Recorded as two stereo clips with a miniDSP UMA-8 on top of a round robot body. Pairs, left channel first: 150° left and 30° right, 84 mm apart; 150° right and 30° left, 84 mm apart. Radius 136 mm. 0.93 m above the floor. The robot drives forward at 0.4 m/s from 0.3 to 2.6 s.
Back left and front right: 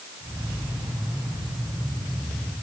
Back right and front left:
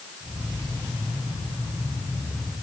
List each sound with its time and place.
Only background noise.